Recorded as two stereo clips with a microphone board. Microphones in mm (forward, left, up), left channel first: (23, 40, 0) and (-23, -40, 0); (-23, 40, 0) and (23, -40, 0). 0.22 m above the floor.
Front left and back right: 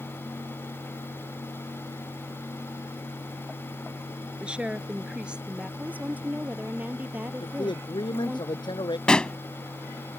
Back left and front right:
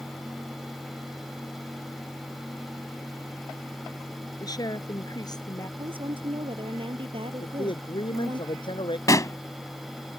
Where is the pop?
135° left.